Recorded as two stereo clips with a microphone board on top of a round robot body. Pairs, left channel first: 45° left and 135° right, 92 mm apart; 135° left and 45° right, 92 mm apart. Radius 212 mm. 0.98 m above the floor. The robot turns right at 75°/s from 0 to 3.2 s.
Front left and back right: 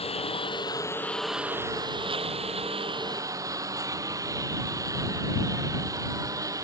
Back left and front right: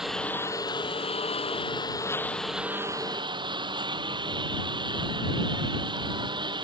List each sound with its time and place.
0.0 s a lawn mower: 40° left; by 6.6 s 80° right